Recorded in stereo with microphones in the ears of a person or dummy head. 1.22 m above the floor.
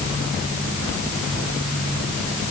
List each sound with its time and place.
Only background noise.